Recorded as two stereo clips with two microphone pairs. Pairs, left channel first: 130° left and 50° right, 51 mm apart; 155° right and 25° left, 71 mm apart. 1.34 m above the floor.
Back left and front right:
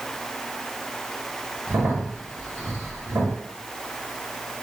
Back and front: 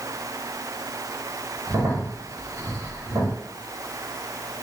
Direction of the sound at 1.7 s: 15° right.